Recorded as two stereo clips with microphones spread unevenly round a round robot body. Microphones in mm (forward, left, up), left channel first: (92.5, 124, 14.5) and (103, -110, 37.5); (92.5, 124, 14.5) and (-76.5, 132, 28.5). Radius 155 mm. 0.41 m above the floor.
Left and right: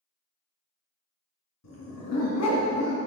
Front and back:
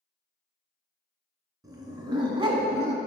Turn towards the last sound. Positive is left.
turn(degrees=125)